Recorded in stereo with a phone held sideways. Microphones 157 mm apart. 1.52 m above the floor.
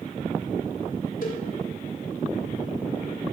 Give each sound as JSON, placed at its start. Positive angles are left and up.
{"t": 1.2, "sound": "a cowbell", "side_deg": 65, "distance_m": 2.0}